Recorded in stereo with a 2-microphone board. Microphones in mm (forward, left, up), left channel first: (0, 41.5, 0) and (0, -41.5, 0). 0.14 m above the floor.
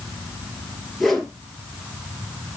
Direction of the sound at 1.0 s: Centre (ahead or behind).